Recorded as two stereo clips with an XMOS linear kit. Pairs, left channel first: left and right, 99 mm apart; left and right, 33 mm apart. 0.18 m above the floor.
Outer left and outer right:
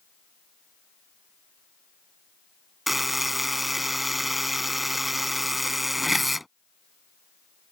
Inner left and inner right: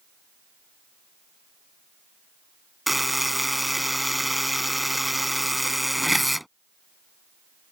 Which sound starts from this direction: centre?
A buzzer, at 2.9 s.